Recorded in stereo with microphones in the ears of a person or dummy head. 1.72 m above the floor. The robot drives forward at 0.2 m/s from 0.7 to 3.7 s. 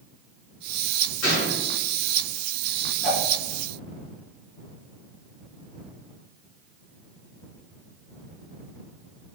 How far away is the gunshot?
About 1.8 m.